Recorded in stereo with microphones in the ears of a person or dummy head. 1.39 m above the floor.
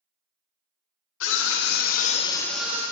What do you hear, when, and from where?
1.2 s a scream: 70° left (ahead or behind), 1.3 m; by 2.8 s 20° right (ahead or behind), 0.7 m